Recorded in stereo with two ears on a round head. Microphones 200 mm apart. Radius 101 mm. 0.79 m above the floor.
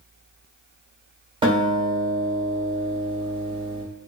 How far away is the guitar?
About 1.0 m.